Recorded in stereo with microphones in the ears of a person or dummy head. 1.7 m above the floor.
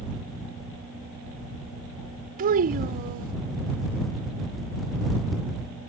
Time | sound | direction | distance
2.4 | a child speaking | 45° right (ahead or behind) | ?